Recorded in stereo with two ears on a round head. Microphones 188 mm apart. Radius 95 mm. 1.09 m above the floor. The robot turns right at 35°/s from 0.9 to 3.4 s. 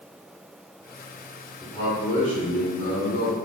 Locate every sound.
1.6 s a man speaking: 10° left, 1.2 m; by 3.4 s 75° left, 1.2 m